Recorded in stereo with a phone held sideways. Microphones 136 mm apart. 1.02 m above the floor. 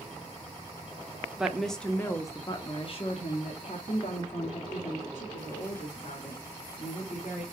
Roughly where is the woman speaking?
Centre.